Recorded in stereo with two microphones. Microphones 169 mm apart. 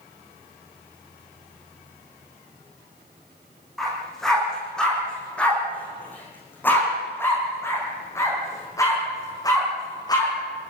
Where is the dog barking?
Centre (ahead or behind), 9.5 m; by 10.3 s 20° left (ahead or behind), 10.5 m.